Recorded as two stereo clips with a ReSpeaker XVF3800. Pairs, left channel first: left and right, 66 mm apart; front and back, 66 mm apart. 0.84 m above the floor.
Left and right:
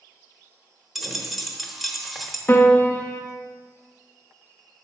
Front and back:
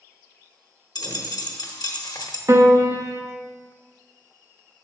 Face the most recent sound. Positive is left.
turn(degrees=145)